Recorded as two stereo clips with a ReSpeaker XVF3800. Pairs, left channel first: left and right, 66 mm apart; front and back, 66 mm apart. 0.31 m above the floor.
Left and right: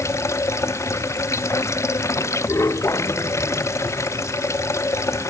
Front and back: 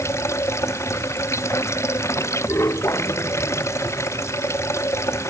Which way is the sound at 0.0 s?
45° left.